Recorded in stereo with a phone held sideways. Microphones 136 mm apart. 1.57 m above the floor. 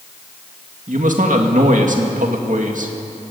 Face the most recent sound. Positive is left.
turn(degrees=-70)  # may be behind; listen again after turning